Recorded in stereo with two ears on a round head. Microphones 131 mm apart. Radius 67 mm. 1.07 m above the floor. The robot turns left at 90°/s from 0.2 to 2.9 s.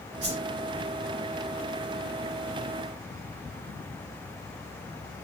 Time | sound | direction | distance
0.2 | a whoosh | 60° right (ahead or behind) | 1.5 m